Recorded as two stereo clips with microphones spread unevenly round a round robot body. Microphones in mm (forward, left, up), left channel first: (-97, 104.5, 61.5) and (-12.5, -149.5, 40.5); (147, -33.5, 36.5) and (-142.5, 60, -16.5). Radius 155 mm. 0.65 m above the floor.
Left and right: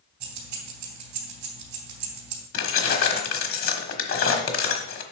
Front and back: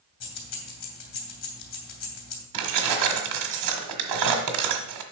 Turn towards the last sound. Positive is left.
turn(degrees=145)